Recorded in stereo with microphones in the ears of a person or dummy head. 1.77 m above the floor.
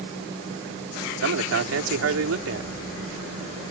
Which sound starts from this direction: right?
A man speaking, at 1.2 s.